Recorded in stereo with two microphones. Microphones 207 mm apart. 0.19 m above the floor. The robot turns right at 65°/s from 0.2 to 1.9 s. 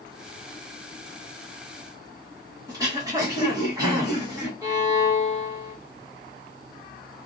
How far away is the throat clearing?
About 1.6 m.